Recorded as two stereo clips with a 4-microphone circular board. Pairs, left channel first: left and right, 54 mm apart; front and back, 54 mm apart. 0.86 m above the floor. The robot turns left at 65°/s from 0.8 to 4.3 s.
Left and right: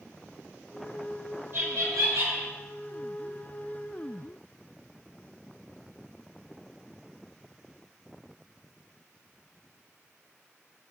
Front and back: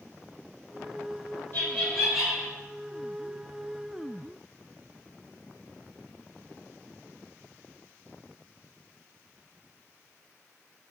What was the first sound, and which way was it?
Laughter, 45° right.